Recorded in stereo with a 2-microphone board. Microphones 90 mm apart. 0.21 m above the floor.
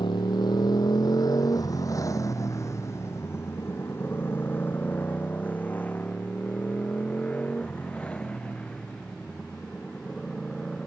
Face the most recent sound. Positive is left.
turn(degrees=10)  # may be behind; listen again after turning